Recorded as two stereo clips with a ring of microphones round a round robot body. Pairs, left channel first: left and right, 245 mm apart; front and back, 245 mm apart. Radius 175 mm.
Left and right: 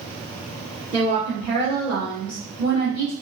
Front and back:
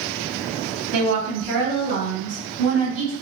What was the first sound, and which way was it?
A woman speaking, 165° right.